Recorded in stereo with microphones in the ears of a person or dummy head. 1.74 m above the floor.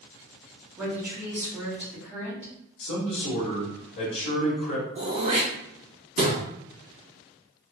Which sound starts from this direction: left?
A man speaking, at 2.8 s.